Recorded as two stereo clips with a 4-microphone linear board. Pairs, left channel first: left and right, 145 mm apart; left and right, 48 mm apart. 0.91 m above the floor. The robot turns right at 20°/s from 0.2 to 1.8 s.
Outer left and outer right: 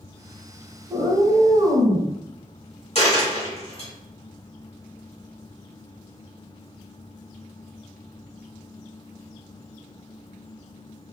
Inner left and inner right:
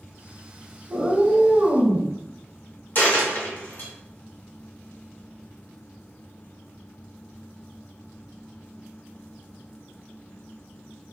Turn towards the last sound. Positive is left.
turn(degrees=40)  # may be behind; listen again after turning